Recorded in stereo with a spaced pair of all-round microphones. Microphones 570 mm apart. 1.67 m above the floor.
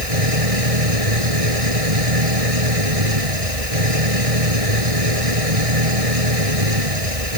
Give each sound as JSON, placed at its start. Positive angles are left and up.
{"t": 0.0, "sound": "an engine running", "side_deg": -75}